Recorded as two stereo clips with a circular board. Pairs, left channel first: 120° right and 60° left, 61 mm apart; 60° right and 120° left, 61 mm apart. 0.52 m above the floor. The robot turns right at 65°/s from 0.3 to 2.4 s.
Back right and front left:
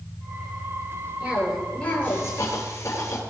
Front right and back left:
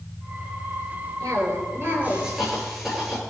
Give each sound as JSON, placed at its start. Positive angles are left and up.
{"t": 1.2, "sound": "a cough", "azimuth_deg": 125, "distance_m": 8.5}